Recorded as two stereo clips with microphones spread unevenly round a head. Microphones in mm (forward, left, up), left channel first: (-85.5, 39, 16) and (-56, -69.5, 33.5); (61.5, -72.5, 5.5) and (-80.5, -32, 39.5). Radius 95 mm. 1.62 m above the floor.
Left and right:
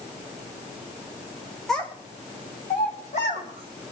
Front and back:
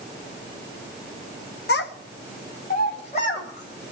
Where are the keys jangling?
I don't hear keys jangling.